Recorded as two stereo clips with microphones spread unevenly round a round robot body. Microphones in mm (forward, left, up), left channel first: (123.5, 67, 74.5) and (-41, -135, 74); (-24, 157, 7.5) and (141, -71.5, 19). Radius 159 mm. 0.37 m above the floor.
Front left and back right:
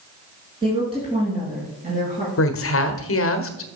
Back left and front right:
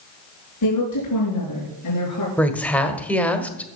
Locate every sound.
0.6 s a woman speaking: 155° left, 6 m; by 2.3 s 170° left, 6 m
2.4 s a woman speaking: 45° left, 1.5 m